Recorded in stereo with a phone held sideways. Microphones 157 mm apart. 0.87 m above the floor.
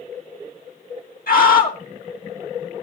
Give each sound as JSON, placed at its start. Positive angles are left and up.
{"t": 1.3, "sound": "a scream", "side_deg": 65, "distance_m": 1.9}